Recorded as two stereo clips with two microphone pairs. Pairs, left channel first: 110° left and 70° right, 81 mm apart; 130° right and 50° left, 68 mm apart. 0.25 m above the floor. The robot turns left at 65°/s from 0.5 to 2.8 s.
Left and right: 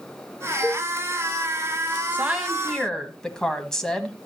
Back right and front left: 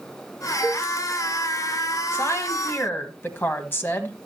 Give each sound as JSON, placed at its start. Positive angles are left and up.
{"t": 0.6, "sound": "a cowbell", "azimuth_deg": 25, "distance_m": 3.5}
{"t": 2.1, "sound": "a woman speaking", "azimuth_deg": -125, "distance_m": 1.2}